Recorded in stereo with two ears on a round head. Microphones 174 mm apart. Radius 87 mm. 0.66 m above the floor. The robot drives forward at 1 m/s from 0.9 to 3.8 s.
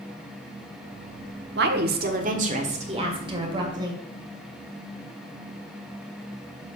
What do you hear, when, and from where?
1.6 s a woman speaking: 60° right (ahead or behind), 1.3 m; by 4.0 s 25° right (ahead or behind), 3 m